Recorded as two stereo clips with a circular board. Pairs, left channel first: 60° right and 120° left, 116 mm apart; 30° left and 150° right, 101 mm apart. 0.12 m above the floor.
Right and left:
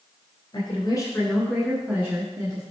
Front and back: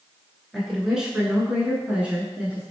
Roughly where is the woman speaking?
Ahead right.